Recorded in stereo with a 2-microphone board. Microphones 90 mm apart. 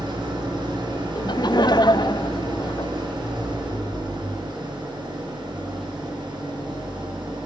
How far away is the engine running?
About 6.5 m.